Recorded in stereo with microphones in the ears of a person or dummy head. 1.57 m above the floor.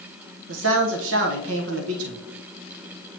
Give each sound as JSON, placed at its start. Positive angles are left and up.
{"t": 0.5, "sound": "a man speaking", "side_deg": -75, "distance_m": 1.1}